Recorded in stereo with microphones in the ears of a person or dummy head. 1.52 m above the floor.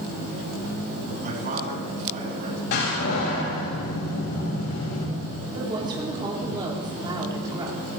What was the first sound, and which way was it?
A man speaking, 45° right (ahead or behind).